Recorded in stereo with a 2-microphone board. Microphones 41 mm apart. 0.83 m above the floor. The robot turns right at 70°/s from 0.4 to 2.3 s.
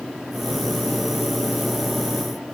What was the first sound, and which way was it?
Only background noise.